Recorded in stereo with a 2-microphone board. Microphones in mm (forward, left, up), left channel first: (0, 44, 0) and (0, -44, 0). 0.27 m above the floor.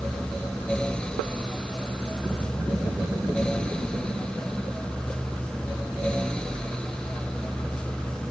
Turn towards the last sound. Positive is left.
No sound to turn to.